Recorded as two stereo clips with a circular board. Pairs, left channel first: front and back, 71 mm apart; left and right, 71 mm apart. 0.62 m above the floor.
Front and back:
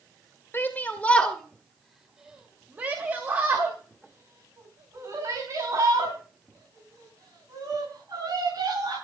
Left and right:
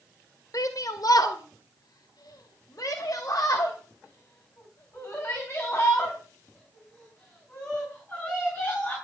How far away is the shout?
About 2 m.